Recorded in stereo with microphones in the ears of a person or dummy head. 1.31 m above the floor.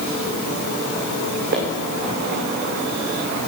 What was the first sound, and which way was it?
Footsteps, 55° right (ahead or behind).